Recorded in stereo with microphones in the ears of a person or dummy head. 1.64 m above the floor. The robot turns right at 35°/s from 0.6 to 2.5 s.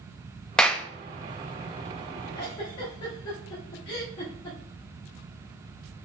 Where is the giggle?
25° left (ahead or behind), 1.2 m.